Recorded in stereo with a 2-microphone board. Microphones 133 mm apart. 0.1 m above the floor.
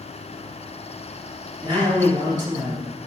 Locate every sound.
1.6 s a man speaking: 30° right (ahead or behind), 2 m